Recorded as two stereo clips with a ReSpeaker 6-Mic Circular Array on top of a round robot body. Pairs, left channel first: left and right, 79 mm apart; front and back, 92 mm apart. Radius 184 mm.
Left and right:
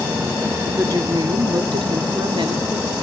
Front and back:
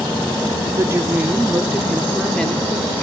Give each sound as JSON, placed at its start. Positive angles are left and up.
{"t": 0.8, "sound": "a woman speaking", "azimuth_deg": -130, "distance_m": 1.5}